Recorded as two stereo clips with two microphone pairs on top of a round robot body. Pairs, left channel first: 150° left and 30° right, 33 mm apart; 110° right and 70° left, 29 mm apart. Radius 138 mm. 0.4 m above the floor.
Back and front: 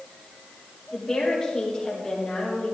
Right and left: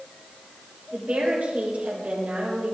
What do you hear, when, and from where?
0.9 s a woman speaking: 95° left, 2.5 m